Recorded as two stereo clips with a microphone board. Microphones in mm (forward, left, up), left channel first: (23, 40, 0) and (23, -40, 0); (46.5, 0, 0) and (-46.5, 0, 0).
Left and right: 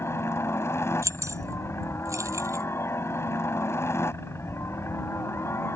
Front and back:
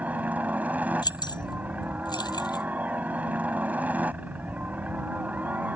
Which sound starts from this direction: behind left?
A helicopter, at 0.0 s.